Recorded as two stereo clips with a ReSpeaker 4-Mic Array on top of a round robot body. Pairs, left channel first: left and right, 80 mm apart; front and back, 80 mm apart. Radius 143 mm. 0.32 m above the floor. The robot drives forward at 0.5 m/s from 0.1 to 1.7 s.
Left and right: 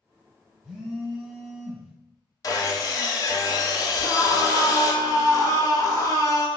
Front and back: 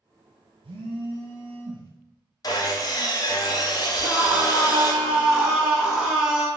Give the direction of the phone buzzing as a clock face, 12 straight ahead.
6 o'clock.